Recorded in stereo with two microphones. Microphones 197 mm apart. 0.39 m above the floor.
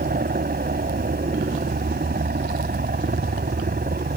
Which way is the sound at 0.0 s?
55° right (ahead or behind).